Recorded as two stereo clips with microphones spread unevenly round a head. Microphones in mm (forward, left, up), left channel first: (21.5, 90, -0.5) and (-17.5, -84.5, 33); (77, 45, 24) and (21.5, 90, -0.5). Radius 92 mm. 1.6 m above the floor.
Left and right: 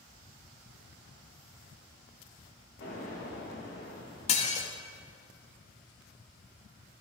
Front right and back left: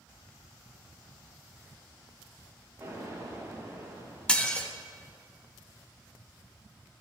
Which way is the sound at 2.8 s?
90° left.